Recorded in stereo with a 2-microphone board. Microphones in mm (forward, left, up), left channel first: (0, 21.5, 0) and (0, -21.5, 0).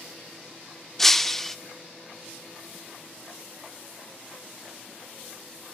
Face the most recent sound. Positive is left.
turn(degrees=5)  # may be behind; listen again after turning